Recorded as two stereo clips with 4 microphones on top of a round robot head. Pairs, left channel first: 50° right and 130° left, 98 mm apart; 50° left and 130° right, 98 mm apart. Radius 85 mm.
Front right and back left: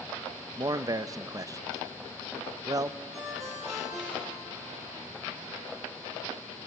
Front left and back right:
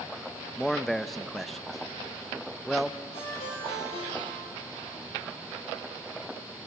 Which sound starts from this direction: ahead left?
A ringtone, at 3.1 s.